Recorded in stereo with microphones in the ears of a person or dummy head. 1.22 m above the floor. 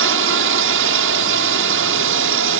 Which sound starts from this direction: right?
A drone, at 0.0 s.